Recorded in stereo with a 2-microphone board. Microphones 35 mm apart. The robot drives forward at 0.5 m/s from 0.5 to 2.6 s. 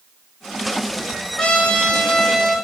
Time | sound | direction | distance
1.4 | a trumpet | 25° left (ahead or behind) | 5 m